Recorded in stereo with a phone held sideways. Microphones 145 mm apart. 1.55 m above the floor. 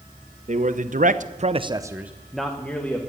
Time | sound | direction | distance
0.5 | a man speaking | 55° right (ahead or behind) | 1.2 m